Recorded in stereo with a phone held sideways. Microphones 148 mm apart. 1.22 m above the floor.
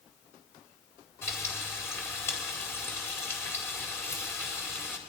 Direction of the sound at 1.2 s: 15° left (ahead or behind).